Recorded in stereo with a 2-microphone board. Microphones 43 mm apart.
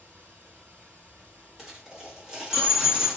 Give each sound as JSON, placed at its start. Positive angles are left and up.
{"t": 0.0, "sound": "running water", "side_deg": -40, "distance_m": 1.8}
{"t": 1.6, "sound": "a dropped coin", "side_deg": -10, "distance_m": 1.1}